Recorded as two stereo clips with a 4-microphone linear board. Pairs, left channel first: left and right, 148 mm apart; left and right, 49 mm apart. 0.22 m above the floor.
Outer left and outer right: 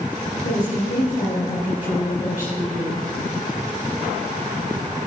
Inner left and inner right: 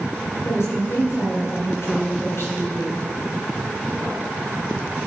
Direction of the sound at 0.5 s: 70° left (ahead or behind).